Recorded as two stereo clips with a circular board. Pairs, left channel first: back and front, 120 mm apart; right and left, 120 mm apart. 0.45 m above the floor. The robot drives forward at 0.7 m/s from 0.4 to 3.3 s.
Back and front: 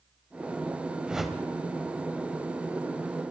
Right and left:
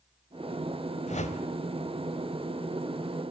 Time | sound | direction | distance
1.1 | a whoosh | 80° right | 1.1 m